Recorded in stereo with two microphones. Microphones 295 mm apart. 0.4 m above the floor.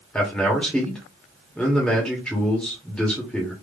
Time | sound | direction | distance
0.1 | a man speaking | 5° left (ahead or behind) | 1.3 m